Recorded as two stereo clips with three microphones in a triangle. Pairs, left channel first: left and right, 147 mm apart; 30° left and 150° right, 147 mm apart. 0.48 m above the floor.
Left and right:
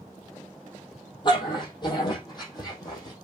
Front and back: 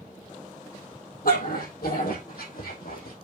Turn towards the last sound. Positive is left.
turn(degrees=25)